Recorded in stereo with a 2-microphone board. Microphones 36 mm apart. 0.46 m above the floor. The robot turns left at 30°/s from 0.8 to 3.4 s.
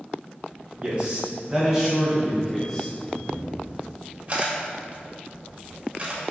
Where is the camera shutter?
25° right (ahead or behind), 1.5 m; by 6.3 s 35° right (ahead or behind), 1.5 m.